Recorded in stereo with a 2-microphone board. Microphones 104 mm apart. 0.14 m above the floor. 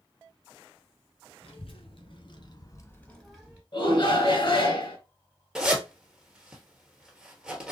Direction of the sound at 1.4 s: 60° left (ahead or behind).